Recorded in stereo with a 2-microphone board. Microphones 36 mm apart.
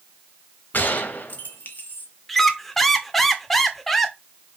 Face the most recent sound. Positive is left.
turn(degrees=5)  # may be behind; listen again after turning